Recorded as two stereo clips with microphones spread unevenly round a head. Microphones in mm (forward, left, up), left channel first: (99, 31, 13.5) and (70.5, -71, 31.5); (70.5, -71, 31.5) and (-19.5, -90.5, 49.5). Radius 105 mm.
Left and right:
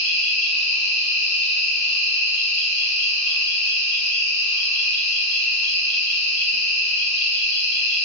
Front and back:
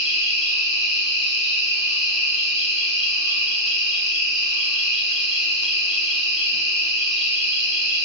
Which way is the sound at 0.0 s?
80° left.